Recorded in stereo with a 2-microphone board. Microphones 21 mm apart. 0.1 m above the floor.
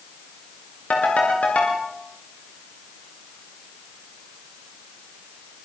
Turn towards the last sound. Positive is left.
turn(degrees=80)